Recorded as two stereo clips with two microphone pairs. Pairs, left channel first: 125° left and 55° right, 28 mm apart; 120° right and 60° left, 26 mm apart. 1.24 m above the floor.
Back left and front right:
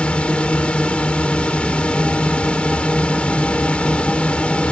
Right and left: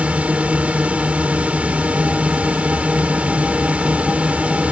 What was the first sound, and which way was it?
A drone, 85° left.